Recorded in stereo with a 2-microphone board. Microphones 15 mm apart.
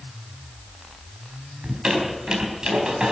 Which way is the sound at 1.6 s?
50° right (ahead or behind).